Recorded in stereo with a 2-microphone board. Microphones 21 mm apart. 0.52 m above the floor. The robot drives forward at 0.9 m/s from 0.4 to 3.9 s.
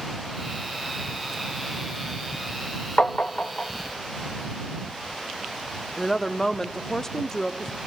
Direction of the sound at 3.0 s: 80° left.